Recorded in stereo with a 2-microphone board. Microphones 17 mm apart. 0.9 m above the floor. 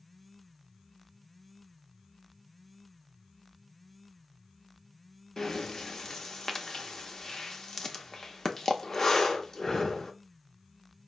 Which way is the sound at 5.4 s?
30° left (ahead or behind).